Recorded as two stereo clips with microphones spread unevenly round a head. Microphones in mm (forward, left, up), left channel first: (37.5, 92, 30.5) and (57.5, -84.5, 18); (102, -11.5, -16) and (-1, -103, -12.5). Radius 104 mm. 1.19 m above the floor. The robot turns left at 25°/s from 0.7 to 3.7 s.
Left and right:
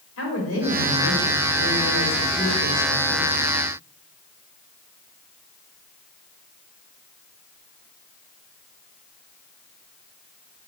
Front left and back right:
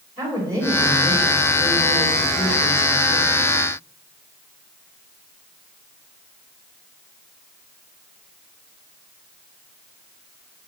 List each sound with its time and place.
0.2 s a woman speaking: 125° left, 4 m; by 3.5 s 55° left, 4 m